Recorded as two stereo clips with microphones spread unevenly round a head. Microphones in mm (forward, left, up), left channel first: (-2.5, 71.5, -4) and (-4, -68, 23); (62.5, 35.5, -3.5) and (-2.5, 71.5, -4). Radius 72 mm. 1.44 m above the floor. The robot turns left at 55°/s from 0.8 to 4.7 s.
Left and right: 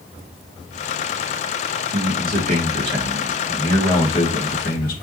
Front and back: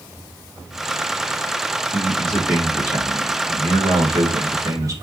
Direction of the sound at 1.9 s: 95° right.